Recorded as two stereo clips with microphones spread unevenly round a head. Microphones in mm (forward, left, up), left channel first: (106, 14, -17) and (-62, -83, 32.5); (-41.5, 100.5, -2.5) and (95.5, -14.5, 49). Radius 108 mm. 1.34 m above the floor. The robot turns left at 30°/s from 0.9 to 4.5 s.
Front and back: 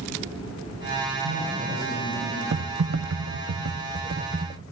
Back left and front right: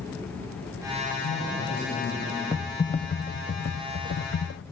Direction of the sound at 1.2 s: 175° left.